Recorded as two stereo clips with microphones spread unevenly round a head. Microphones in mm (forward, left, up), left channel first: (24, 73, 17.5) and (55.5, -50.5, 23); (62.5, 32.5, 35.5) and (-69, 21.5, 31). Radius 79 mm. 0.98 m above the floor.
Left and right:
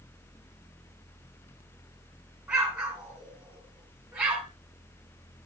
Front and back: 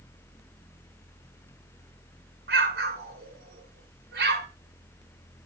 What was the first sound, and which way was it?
An explosion, 160° right.